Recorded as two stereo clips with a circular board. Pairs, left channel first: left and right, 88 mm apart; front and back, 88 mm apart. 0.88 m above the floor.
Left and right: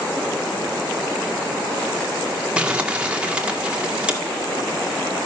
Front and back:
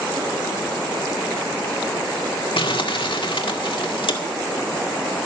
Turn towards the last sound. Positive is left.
turn(degrees=-10)